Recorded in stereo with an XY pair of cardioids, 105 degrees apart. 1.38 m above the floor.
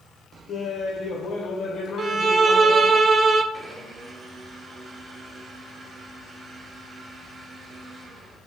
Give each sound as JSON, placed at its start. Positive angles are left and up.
{"t": 0.5, "sound": "laughter", "azimuth_deg": 60, "distance_m": 1.4}
{"t": 2.0, "sound": "a violin", "azimuth_deg": -45, "distance_m": 0.5}
{"t": 3.5, "sound": "a blender", "azimuth_deg": -55, "distance_m": 2.0}